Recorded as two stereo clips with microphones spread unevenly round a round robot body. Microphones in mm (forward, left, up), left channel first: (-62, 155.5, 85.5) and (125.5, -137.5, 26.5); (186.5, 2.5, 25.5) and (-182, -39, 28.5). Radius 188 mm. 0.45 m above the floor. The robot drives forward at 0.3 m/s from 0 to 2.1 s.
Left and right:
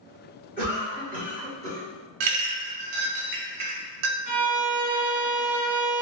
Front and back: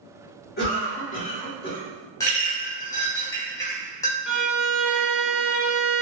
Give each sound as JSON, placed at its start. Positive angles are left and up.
{"t": 0.6, "sound": "a cough", "azimuth_deg": -35, "distance_m": 1.6}
{"t": 2.2, "sound": "a clink", "azimuth_deg": -75, "distance_m": 0.6}
{"t": 4.3, "sound": "a violin", "azimuth_deg": -85, "distance_m": 0.9}